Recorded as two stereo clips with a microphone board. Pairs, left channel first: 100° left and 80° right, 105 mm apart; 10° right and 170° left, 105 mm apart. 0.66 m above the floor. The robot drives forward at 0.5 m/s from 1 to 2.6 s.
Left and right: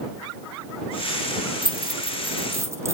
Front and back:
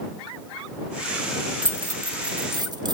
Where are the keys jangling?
120° right, 0.8 m; by 2.9 s 140° right, 1.1 m.